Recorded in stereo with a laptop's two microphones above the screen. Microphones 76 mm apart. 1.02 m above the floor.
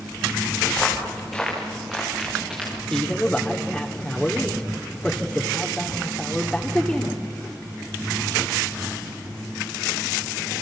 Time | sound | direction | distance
0.7 | footsteps | 10° left (ahead or behind) | 4.5 m
2.9 | a man speaking | 10° left (ahead or behind) | 2 m